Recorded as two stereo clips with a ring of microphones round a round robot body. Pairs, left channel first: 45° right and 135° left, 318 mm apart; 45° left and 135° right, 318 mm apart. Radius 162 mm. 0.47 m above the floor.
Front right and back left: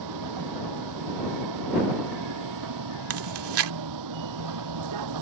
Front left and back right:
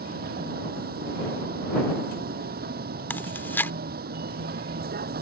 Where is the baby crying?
I don't hear a baby crying.